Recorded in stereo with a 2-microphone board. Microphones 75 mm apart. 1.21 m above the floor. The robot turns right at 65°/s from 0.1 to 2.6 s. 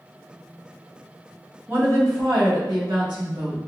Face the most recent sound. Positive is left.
turn(degrees=-100)